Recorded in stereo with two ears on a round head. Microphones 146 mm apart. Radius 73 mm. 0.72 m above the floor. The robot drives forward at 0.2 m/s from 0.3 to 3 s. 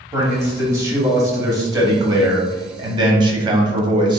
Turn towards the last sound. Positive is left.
turn(degrees=-30)  # may be behind; listen again after turning